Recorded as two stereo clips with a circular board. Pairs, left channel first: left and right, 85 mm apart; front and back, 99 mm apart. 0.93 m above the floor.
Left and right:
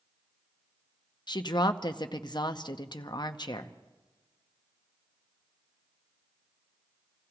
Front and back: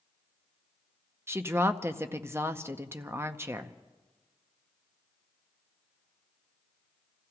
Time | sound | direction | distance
1.3 | a woman speaking | 115° left | 0.8 m